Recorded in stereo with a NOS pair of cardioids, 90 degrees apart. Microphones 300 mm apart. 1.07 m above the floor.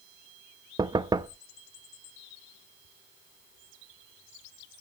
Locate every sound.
0.8 s knocking: 15° right, 0.6 m